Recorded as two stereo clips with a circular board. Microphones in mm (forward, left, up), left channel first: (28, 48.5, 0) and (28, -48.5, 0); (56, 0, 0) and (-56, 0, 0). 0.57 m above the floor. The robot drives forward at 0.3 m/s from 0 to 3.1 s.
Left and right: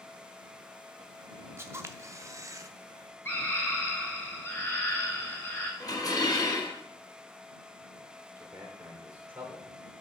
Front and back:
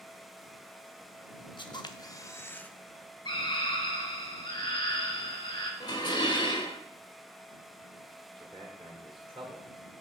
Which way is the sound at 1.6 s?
30° right.